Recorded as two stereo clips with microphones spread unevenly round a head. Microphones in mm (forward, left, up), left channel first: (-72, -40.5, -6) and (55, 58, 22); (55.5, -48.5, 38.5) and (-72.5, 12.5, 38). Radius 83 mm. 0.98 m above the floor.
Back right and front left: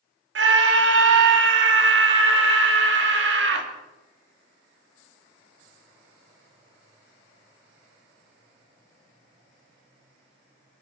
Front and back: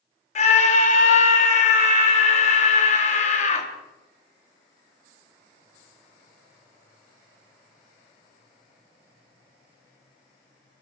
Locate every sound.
0.3 s a scream: 15° left, 2.5 m